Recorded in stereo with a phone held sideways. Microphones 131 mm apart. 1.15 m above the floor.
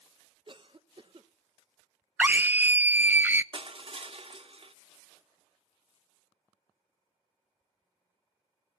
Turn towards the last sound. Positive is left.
turn(degrees=-50)  # may be behind; listen again after turning